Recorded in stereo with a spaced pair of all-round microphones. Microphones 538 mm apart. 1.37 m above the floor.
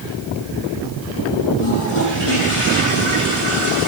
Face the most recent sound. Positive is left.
turn(degrees=65)  # may be behind; listen again after turning